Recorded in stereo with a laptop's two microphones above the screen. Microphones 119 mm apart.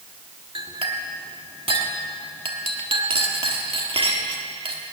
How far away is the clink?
About 1.2 m.